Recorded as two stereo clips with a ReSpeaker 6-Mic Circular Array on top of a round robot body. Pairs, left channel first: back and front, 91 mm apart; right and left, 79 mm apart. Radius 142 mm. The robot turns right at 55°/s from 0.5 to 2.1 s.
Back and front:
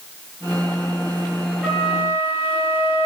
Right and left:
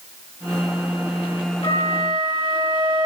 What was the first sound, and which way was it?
A flute, 95° right.